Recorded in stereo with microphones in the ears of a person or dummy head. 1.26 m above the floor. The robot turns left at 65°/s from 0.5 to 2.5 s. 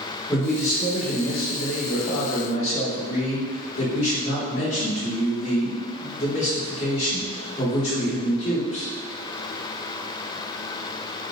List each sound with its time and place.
0.3 s a man speaking: 170° left, 1.4 m; by 8.9 s 40° left, 1.4 m